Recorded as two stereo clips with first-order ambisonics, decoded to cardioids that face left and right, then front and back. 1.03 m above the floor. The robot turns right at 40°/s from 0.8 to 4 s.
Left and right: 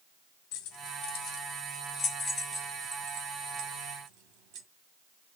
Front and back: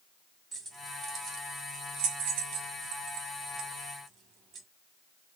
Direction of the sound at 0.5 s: 115° left.